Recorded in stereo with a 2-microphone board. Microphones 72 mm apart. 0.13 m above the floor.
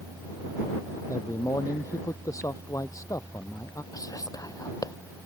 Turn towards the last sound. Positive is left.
turn(degrees=55)  # may be behind; listen again after turning